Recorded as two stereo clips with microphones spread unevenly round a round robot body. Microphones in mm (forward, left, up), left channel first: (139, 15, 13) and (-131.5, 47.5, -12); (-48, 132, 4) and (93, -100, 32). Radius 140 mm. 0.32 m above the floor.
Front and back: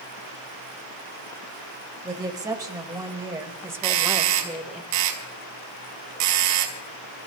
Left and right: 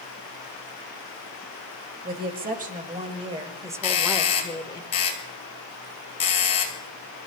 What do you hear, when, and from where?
2.0 s a woman speaking: 115° right, 2 m; by 4.8 s 100° left, 1.4 m
3.8 s a doorbell: 175° right, 4 m